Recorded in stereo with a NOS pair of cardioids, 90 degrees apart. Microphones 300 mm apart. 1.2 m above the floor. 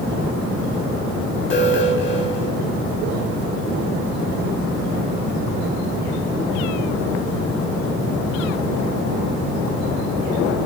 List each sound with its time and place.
1.5 s an alarm: 40° left, 7.5 m